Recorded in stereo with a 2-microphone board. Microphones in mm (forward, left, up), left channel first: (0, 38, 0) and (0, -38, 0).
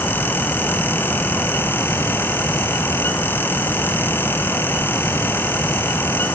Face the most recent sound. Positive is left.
No sound to turn to.